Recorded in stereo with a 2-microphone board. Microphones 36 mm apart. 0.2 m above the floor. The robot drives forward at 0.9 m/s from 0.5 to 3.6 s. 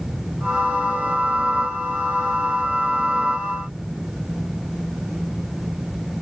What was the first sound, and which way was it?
Only background noise.